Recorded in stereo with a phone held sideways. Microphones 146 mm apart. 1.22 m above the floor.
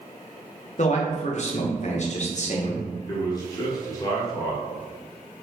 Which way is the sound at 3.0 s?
25° left (ahead or behind).